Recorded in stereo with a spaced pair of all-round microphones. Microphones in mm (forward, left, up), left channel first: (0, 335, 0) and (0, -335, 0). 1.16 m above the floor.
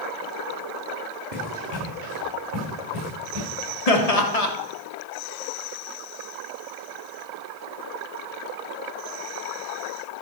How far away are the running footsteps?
About 4.5 m.